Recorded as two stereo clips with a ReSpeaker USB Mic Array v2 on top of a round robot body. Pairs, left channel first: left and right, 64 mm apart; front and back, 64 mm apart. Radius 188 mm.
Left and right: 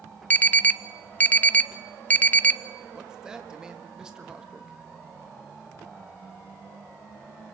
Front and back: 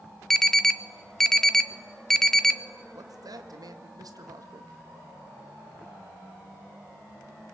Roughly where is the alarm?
Left.